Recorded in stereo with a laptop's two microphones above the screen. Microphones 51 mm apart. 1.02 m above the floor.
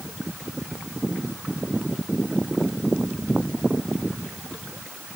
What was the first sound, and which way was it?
Only background noise.